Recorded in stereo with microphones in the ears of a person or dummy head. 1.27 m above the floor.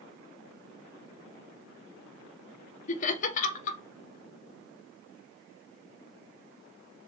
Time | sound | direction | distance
2.9 | laughter | 45° left (ahead or behind) | 0.6 m